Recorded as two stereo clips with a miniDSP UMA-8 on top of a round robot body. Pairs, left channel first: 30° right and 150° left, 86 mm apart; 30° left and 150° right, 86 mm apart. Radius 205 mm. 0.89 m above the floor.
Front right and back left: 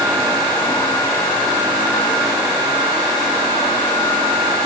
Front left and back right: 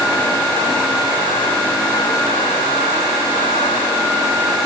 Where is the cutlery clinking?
No cutlery clinking in this recording.